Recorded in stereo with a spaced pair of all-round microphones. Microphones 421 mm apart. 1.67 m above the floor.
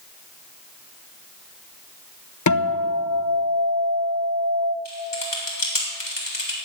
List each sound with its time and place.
2.5 s a guitar: 45° left (ahead or behind), 0.8 m
4.8 s typing on a keyboard: 80° left, 3.5 m